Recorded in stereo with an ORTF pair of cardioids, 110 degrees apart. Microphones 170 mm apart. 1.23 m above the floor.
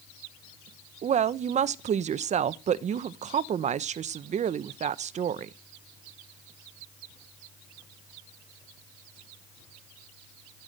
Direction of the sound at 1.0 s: 45° right.